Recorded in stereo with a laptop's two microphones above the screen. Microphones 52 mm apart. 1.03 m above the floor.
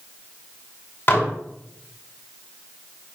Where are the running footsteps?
I don't hear running footsteps.